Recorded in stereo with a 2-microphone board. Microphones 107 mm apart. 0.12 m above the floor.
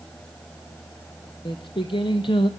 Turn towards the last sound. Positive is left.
turn(degrees=55)  # may be behind; listen again after turning